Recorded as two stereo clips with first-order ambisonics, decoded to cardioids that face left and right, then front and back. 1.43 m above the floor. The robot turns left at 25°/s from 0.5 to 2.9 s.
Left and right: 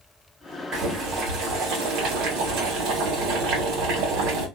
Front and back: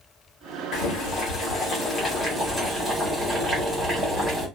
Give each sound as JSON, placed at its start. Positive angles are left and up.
{"t": 0.7, "sound": "boiling", "azimuth_deg": -35, "distance_m": 1.3}